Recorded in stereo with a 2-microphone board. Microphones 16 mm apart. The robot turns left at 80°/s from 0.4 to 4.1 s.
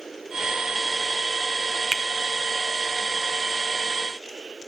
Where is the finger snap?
15° left (ahead or behind), 1.3 m; by 2.0 s 25° left (ahead or behind), 1.3 m.